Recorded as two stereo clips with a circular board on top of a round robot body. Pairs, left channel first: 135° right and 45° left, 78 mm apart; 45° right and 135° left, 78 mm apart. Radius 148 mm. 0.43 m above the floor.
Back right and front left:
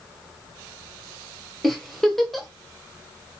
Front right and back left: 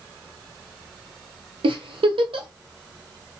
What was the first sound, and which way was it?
A giggle, 140° left.